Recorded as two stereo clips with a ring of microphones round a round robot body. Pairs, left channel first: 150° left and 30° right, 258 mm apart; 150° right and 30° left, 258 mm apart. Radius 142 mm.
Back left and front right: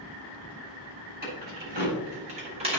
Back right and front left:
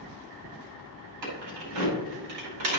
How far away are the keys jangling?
About 3.5 m.